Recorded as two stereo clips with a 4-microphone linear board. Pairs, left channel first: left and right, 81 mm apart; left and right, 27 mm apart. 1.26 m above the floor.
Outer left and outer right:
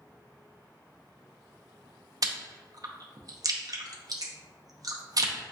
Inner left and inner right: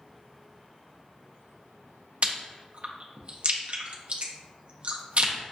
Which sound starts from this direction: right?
Chewing, at 2.2 s.